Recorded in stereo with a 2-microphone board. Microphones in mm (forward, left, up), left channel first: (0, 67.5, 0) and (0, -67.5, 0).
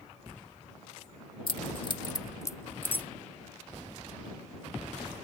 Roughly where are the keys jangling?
Left.